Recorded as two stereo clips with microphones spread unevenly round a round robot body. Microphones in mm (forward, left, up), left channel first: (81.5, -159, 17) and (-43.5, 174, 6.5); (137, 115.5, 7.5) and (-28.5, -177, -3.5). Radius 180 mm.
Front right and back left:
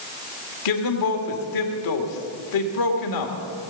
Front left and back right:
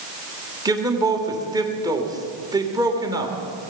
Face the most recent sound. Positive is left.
turn(degrees=-40)